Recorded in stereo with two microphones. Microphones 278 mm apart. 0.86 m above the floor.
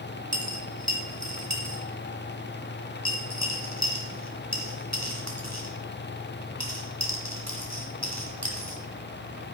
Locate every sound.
0.3 s a dropped coin: 70° right (ahead or behind), 2 m